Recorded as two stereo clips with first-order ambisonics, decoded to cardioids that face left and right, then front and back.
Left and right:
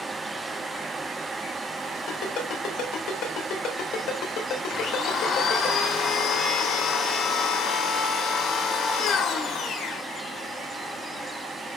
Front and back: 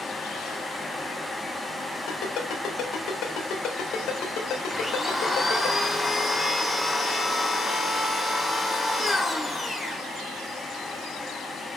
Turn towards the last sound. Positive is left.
turn(degrees=80)